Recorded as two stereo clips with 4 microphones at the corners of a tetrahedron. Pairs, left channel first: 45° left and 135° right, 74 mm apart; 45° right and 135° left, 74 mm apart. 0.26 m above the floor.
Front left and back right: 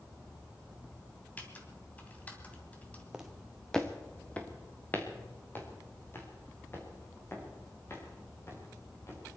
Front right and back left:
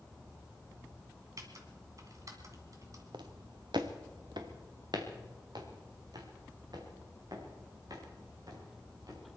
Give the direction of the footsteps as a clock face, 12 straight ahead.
7 o'clock.